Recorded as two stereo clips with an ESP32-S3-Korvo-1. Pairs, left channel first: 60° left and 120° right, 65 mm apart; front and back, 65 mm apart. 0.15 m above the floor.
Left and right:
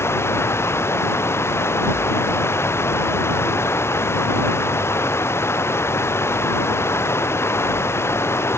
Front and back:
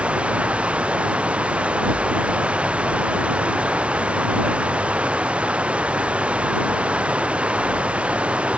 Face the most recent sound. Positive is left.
turn(degrees=110)